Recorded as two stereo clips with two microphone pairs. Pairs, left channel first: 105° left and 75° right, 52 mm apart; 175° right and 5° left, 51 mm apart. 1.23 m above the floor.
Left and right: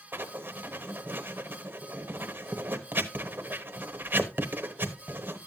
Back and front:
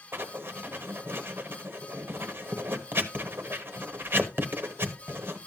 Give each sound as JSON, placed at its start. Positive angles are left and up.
{"t": 0.1, "sound": "writing", "azimuth_deg": -35, "distance_m": 1.0}